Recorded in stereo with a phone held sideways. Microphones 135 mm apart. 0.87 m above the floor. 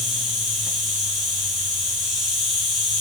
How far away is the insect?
About 4.5 m.